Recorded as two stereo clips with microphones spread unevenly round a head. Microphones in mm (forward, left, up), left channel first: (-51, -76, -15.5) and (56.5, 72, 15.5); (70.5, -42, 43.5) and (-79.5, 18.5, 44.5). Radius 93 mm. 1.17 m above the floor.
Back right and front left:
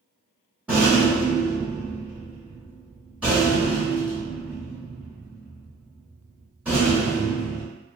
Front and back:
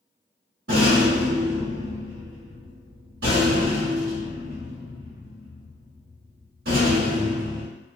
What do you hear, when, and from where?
0.7 s a rattle: 130° left, 1.2 m